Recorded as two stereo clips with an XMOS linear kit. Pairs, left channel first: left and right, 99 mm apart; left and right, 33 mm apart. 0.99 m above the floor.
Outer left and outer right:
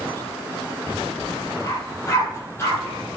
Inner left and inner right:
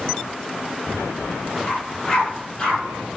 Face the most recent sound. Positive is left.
turn(degrees=20)  # may be behind; listen again after turning